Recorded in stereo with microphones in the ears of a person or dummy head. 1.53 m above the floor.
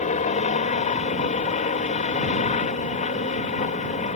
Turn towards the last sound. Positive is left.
turn(degrees=30)  # may be behind; listen again after turning